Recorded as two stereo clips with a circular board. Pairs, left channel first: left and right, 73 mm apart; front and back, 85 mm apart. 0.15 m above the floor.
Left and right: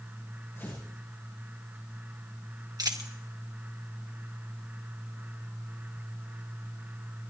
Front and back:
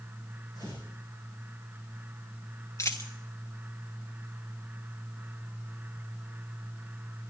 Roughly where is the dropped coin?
Ahead right.